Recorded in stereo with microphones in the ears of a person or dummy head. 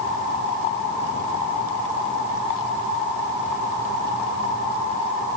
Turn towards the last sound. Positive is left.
No sound to turn to.